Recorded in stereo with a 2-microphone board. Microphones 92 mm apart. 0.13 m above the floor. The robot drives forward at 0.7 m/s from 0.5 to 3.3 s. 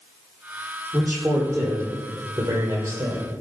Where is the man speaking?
30° right (ahead or behind), 5 m; by 3.3 s 45° right (ahead or behind), 4 m.